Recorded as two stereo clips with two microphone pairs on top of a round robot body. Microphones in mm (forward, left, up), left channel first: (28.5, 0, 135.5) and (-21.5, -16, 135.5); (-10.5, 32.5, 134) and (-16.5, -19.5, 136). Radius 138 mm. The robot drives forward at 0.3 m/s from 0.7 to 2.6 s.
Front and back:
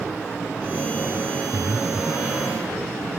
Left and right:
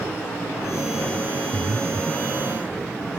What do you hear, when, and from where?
1.5 s breathing: 105° right